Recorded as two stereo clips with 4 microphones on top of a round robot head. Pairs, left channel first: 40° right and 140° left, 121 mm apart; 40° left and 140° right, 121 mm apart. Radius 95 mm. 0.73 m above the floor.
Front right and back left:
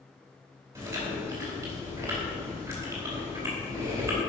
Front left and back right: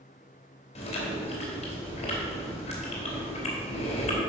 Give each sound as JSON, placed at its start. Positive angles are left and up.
{"t": 0.8, "sound": "chewing", "azimuth_deg": 70, "distance_m": 3.0}